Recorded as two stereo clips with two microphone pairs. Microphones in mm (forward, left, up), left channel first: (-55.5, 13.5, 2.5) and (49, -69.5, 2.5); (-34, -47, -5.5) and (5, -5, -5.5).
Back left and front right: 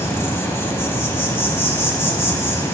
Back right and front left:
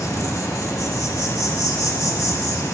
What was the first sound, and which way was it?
An insect, 145° right.